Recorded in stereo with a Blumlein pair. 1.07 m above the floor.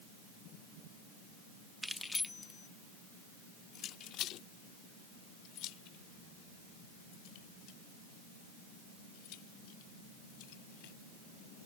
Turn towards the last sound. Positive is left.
turn(degrees=45)